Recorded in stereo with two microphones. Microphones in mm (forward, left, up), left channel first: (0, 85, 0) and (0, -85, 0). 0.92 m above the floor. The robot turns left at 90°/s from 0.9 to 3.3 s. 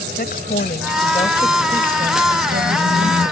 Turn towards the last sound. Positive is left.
turn(degrees=-160)